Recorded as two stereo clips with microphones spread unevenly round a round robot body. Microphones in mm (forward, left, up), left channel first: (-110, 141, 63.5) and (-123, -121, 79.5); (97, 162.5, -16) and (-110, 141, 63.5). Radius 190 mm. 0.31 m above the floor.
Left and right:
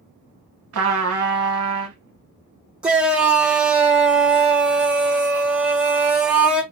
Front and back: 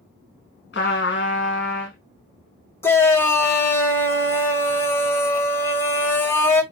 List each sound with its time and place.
0.7 s a trumpet: 45° right, 0.5 m
2.8 s a shout: 5° right, 1.0 m